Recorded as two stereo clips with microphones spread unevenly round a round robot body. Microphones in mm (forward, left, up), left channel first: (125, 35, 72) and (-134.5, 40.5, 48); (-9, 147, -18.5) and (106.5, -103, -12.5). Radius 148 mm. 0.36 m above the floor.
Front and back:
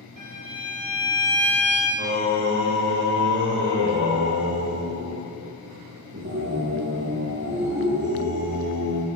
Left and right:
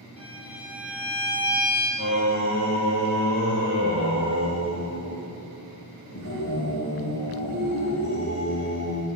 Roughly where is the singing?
Behind left.